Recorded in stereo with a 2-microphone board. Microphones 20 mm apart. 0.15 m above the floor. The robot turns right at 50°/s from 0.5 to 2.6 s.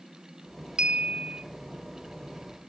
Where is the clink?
95° right, 1.0 m; by 1.4 s 65° right, 1.0 m.